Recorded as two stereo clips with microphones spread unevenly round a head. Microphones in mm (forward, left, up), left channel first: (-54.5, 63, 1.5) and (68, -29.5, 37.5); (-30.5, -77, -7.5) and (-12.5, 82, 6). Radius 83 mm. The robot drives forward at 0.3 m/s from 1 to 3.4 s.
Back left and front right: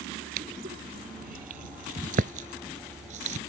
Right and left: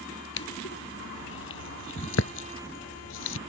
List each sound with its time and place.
0.4 s crushing: 75° right; by 3.4 s 85° right